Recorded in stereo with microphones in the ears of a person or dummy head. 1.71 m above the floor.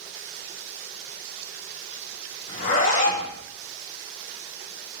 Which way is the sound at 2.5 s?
50° left (ahead or behind).